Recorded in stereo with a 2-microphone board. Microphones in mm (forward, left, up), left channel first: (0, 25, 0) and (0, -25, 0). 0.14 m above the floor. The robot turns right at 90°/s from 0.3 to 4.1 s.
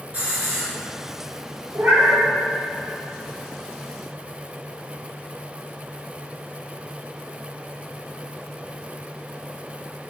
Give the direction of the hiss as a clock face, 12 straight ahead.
5 o'clock.